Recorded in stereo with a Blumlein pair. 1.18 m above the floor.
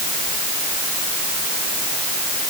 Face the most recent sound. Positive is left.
No sound to turn to.